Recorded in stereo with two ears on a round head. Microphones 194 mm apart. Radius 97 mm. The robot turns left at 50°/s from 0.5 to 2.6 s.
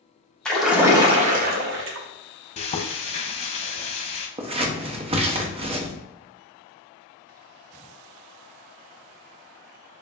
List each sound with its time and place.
0.5 s a splash: 5° left, 0.8 m; by 2.1 s 75° right, 0.8 m
2.6 s frying: 30° left (ahead or behind), 0.6 m
4.4 s scissors: 25° right (ahead or behind), 0.7 m